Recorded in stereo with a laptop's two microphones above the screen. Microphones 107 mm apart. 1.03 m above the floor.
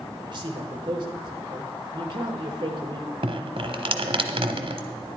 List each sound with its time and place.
0.3 s a man speaking: 45° right (ahead or behind), 1.3 m
3.2 s dripping: 55° right (ahead or behind), 1.0 m